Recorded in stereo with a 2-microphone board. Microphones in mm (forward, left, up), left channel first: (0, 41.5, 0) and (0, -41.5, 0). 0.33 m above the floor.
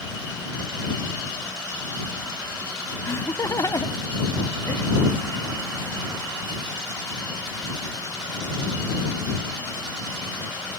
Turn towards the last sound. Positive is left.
turn(degrees=45)  # may be behind; listen again after turning